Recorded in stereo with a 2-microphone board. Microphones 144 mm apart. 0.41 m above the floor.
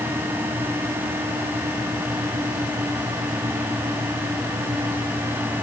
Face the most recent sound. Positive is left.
No sound to turn to.